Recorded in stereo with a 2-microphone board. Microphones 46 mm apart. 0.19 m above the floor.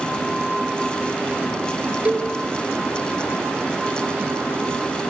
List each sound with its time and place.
2.0 s a cowbell: 35° right (ahead or behind), 4 m